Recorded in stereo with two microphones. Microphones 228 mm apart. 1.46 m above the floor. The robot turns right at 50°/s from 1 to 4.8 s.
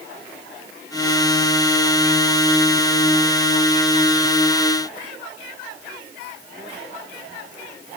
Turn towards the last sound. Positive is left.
No sound to turn to.